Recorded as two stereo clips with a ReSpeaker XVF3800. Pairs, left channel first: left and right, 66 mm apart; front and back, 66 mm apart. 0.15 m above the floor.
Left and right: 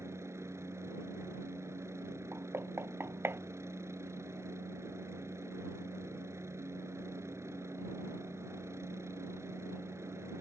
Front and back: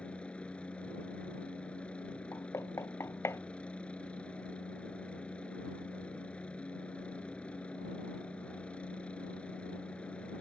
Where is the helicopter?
65° right.